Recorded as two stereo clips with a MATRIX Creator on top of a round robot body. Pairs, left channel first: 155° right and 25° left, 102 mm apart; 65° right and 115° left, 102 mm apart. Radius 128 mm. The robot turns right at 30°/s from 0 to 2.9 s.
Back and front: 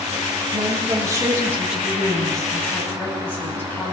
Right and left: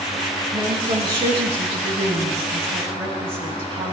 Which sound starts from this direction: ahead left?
A woman speaking, at 0.5 s.